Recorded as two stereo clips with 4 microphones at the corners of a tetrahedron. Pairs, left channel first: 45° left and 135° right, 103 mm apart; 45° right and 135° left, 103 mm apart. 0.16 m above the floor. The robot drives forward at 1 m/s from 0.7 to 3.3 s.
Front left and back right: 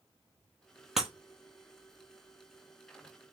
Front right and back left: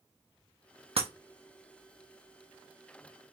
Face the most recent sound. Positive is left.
turn(degrees=170)